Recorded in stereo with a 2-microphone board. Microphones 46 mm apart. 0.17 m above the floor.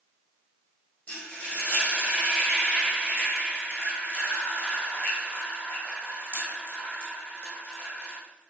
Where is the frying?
40° left (ahead or behind), 3.5 m.